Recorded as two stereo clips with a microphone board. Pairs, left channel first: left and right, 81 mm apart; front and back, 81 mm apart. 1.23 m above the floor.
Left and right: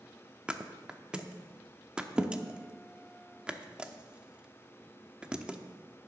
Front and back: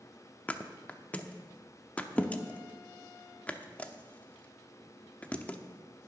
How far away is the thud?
About 0.8 m.